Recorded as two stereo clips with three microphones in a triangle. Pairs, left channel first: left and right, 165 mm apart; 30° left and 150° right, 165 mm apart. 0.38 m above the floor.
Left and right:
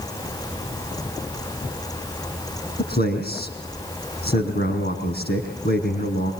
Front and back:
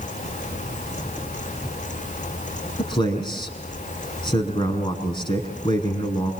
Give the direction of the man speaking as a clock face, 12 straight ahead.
9 o'clock.